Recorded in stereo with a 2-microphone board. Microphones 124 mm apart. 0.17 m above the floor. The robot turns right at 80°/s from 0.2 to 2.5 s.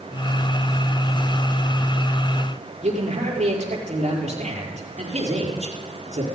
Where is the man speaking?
70° right (ahead or behind), 4 m.